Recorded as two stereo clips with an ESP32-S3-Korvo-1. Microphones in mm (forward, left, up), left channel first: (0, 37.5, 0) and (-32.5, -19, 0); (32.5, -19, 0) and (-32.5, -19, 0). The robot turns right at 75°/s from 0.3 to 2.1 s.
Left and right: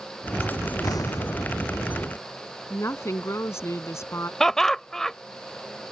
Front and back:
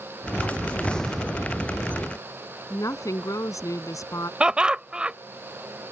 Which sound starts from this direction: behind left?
Laughter, at 4.4 s.